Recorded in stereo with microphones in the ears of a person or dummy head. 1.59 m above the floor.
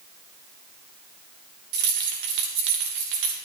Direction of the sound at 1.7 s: 55° right (ahead or behind).